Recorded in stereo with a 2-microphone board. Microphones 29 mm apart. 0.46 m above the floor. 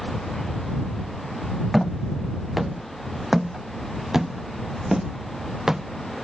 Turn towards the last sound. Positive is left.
turn(degrees=-20)  # may be behind; listen again after turning